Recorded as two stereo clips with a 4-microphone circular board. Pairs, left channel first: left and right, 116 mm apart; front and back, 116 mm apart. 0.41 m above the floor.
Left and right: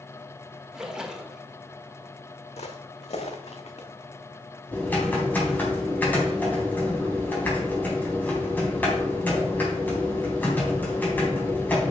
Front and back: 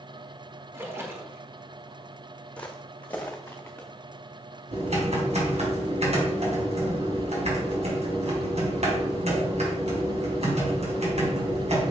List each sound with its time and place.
0.7 s a splash: 160° right, 1.5 m
2.6 s footsteps: 80° left, 1.4 m; by 3.9 s 75° left, 2.5 m
4.7 s typing on a keyboard: 165° left, 3.5 m